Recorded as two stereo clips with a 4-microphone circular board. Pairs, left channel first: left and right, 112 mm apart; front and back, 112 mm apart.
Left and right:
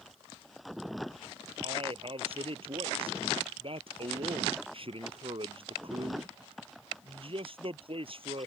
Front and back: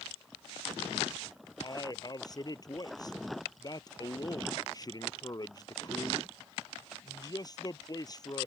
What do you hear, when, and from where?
1.6 s a man speaking: 55° right